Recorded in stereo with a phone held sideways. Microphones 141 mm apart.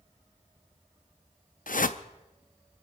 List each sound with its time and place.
1.7 s a whoosh: 85° left, 0.6 m